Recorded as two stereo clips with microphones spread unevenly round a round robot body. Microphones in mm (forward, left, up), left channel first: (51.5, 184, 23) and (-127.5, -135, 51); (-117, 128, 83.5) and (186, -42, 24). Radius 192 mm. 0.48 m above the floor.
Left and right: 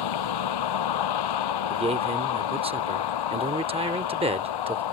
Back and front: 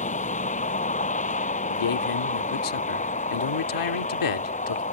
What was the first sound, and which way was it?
A vehicle, 80° left.